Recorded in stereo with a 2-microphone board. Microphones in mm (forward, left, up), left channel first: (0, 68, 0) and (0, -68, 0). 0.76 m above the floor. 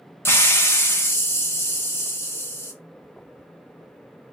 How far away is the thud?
I don't hear a thud.